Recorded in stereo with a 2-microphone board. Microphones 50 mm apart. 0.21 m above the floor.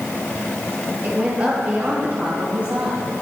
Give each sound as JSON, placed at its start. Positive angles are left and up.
{"t": 1.0, "sound": "a woman speaking", "side_deg": -30, "distance_m": 5.0}